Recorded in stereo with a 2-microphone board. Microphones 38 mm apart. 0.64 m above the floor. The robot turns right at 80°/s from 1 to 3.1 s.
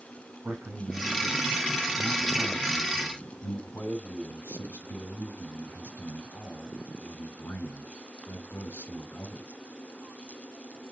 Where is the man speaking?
80° right, 3.5 m; by 9.5 s 90° left, 3.5 m.